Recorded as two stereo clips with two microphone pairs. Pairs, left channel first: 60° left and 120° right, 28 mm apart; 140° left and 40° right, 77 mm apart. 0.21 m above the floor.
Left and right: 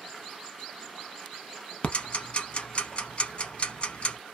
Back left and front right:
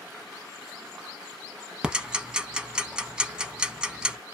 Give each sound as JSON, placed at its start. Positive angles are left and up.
{"t": 1.8, "sound": "ticking", "azimuth_deg": 40, "distance_m": 0.6}